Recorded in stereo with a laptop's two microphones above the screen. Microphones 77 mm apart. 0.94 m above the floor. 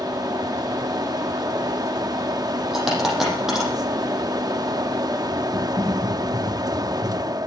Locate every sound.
0.0 s a fan: 55° right (ahead or behind), 0.7 m
2.7 s a dropped coin: 5° right (ahead or behind), 7 m
5.5 s typing on a keyboard: 45° right (ahead or behind), 8 m